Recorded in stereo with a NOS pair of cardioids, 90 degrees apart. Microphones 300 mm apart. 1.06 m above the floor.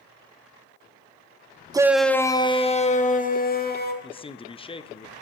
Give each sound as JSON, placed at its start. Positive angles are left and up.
{"t": 1.7, "sound": "a shout", "azimuth_deg": -15, "distance_m": 0.6}
{"t": 4.0, "sound": "a man speaking", "azimuth_deg": 20, "distance_m": 0.6}